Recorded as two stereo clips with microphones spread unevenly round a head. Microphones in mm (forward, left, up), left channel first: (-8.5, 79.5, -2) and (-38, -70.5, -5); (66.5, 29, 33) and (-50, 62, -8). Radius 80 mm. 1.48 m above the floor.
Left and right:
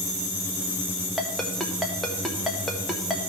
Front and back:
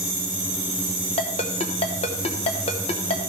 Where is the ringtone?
10° right, 1.1 m.